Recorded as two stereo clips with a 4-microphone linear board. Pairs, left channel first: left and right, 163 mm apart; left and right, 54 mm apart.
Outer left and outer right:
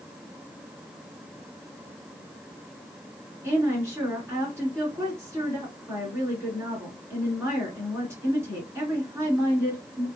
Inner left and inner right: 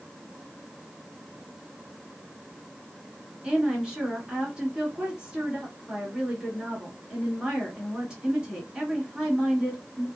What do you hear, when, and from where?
3.4 s a woman speaking: 15° right (ahead or behind), 1.7 m